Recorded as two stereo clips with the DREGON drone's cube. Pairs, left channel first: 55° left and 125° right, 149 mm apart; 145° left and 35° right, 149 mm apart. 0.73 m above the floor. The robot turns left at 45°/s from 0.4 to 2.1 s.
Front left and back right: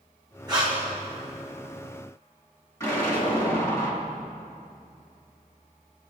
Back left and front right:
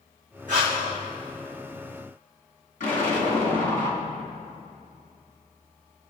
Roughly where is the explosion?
Behind left.